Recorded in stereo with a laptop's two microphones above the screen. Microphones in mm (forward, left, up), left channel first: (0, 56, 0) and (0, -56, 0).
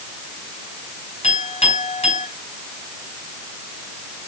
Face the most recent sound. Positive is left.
turn(degrees=75)  # may be behind; listen again after turning